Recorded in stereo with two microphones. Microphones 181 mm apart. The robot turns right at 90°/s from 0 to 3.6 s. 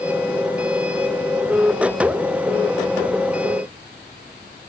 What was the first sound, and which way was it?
Only background noise.